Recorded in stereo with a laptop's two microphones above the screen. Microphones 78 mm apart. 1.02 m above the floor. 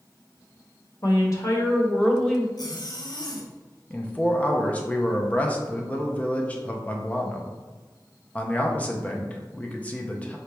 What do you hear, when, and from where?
1.0 s a woman speaking: 55° left (ahead or behind), 1.2 m; by 2.5 s centre (ahead or behind), 1.0 m
2.6 s a zipper: 60° left (ahead or behind), 0.6 m
3.9 s a man speaking: 20° left (ahead or behind), 0.5 m